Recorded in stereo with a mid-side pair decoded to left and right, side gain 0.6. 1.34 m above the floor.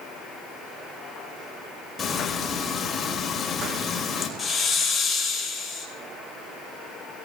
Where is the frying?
30° left, 3 m.